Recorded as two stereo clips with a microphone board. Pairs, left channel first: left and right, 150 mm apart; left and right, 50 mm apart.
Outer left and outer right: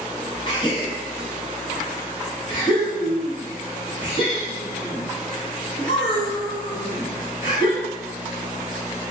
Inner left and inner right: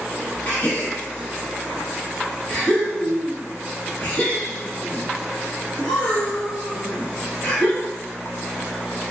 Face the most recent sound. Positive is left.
turn(degrees=30)  # may be behind; listen again after turning